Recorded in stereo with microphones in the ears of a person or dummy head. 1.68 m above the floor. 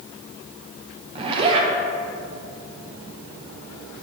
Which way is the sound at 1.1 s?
35° right (ahead or behind).